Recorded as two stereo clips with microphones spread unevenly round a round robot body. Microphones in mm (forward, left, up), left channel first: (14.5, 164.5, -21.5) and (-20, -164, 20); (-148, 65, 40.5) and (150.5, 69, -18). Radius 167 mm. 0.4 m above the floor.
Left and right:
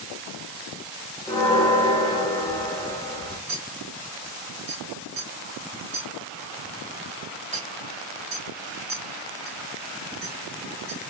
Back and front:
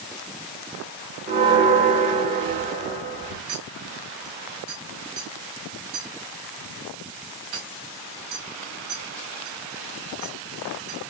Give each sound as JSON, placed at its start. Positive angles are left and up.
{"t": 1.3, "sound": "a bell", "azimuth_deg": 20, "distance_m": 0.8}
{"t": 3.5, "sound": "a clink", "azimuth_deg": -25, "distance_m": 1.8}